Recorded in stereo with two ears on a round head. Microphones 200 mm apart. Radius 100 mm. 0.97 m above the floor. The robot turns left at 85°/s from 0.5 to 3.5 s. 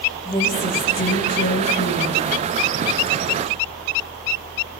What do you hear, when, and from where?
0.2 s a woman speaking: 155° left, 6 m; by 2.2 s 10° left, 6 m